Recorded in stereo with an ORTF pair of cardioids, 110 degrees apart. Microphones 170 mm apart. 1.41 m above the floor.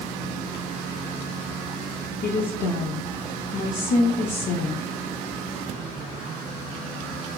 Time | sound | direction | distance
2.2 | a woman speaking | 45° left | 0.6 m